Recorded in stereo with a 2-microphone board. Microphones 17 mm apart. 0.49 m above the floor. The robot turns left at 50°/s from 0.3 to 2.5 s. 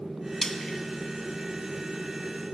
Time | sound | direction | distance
0.4 | frying | 25° left (ahead or behind) | 1.3 m